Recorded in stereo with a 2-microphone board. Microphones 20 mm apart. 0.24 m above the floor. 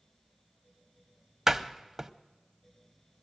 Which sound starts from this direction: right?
A door slam, at 1.5 s.